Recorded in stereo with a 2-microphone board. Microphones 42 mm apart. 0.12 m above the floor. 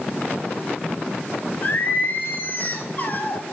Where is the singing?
40° left (ahead or behind), 1.1 m.